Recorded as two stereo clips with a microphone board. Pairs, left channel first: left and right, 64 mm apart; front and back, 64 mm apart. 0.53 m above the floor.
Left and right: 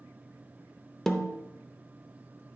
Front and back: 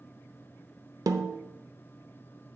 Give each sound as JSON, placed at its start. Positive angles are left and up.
{"t": 1.1, "sound": "a snare drum", "azimuth_deg": 175, "distance_m": 0.7}